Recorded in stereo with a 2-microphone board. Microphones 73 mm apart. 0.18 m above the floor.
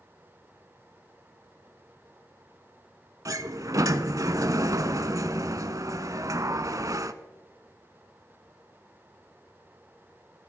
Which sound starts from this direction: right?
A sliding door, at 3.2 s.